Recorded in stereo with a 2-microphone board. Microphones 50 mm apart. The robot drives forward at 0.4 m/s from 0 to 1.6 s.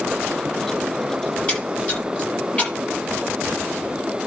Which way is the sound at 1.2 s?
25° left (ahead or behind).